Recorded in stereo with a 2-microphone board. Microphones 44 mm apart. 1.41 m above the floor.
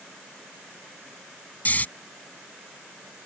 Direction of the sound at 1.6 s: 35° left (ahead or behind).